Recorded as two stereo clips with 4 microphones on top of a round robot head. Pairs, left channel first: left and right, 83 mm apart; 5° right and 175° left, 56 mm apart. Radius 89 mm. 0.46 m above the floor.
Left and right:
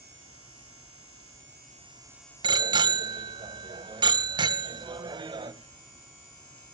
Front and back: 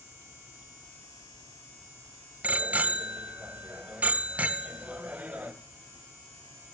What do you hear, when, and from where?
2.4 s a bicycle bell: 120° right, 2 m